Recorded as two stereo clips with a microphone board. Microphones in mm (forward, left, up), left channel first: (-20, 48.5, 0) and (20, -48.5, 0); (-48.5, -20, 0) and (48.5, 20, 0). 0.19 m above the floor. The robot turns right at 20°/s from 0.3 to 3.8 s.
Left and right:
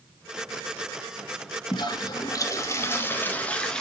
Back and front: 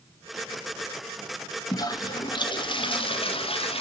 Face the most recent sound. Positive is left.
turn(degrees=-165)